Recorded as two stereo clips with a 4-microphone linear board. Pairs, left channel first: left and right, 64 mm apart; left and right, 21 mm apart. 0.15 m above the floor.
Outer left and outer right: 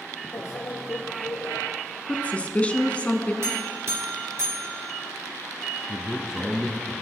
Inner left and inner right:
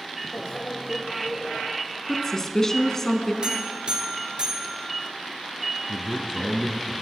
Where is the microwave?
65° left (ahead or behind), 3.5 m.